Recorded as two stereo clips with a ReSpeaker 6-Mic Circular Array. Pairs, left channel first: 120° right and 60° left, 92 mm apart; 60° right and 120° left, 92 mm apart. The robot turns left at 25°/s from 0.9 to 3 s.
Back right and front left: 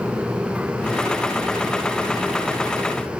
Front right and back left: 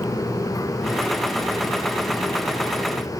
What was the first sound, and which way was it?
Only background noise.